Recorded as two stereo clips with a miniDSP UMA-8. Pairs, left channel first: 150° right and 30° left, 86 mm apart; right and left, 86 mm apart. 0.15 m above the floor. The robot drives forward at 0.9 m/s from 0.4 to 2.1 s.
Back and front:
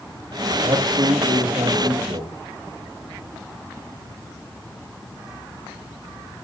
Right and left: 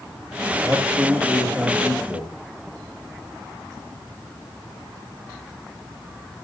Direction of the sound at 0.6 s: 10° left.